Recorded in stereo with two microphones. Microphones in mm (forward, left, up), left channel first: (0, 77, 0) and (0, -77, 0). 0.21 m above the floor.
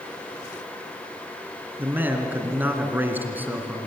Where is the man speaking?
10° right (ahead or behind), 2 m.